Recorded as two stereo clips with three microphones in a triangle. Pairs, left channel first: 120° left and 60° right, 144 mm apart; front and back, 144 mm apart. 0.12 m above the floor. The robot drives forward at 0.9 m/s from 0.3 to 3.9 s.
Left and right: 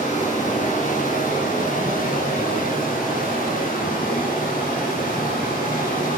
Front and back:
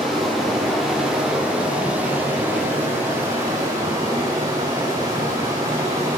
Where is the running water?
90° left, 6.5 m; by 6.2 s 115° left, 7 m.